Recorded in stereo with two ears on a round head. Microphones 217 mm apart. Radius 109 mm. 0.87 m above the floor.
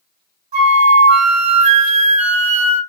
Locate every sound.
0.5 s a flute: 30° right (ahead or behind), 2 m